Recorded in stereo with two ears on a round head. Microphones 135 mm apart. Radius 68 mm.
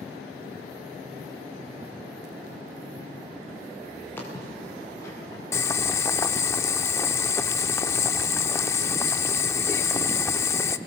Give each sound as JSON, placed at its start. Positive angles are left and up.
{"t": 4.2, "sound": "footsteps", "side_deg": 15, "distance_m": 5.5}
{"t": 5.5, "sound": "boiling", "side_deg": 15, "distance_m": 0.5}